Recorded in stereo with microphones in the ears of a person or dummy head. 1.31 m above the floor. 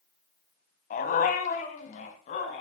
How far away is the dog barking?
About 3 m.